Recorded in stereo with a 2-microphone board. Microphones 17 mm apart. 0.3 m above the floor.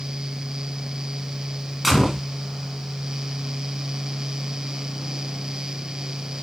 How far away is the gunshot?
About 2.0 m.